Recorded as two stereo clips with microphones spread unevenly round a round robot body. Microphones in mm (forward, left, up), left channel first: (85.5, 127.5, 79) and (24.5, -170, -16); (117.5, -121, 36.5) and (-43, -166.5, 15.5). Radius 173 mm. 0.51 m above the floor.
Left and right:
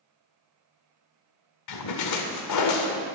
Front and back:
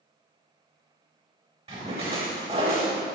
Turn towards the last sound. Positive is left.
turn(degrees=120)